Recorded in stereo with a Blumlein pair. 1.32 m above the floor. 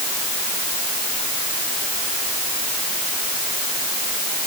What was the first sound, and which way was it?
Only background noise.